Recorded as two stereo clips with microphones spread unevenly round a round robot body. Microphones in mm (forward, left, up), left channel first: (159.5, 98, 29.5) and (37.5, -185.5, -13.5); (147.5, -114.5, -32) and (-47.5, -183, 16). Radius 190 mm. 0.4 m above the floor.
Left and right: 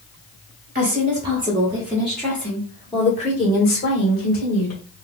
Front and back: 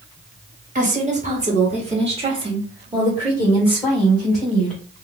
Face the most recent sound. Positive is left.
turn(degrees=85)